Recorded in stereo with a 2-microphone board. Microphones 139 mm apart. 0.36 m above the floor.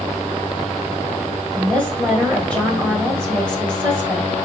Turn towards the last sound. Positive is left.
turn(degrees=5)  # may be behind; listen again after turning